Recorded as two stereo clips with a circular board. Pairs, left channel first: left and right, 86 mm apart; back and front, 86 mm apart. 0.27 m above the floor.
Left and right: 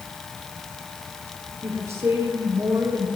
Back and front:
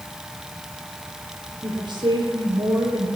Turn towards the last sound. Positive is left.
turn(degrees=-35)